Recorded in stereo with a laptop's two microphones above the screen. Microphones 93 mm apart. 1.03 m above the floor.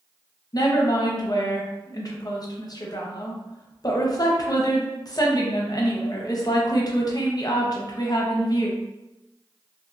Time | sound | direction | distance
0.5 | a woman speaking | 45° left (ahead or behind) | 0.7 m